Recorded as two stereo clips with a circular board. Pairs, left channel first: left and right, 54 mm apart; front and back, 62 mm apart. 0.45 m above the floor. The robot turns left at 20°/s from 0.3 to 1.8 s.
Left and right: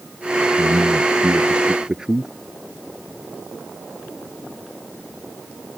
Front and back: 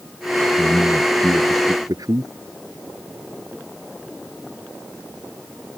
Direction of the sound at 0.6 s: 140° right.